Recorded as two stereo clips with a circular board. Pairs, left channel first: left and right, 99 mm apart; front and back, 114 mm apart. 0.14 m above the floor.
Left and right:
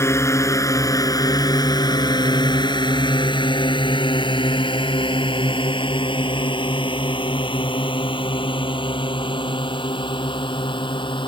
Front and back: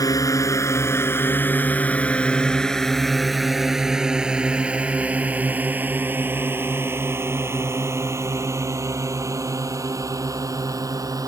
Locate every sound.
0.0 s a drone: 40° left; by 11.3 s 120° left